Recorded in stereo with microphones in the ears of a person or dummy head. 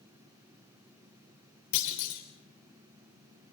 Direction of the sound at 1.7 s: 70° left (ahead or behind).